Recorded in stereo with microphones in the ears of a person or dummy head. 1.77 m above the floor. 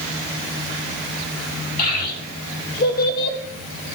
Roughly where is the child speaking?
Left.